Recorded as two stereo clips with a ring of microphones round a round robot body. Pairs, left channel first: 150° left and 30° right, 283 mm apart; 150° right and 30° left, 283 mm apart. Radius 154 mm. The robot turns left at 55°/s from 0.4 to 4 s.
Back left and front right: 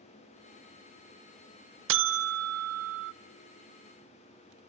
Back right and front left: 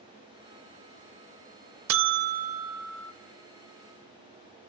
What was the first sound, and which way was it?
A buzzer, 5° left.